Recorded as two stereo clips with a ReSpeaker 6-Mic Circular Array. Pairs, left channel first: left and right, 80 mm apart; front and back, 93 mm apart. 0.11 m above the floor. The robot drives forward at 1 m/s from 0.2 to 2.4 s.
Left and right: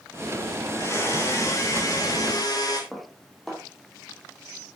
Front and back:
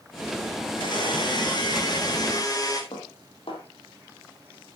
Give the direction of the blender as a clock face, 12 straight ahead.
11 o'clock.